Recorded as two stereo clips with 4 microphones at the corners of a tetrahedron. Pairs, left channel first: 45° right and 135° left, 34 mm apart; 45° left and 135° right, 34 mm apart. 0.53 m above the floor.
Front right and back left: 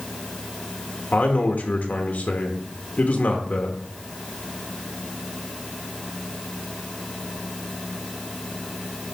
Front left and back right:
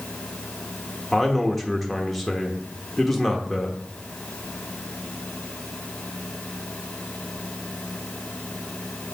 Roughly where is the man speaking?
Ahead right.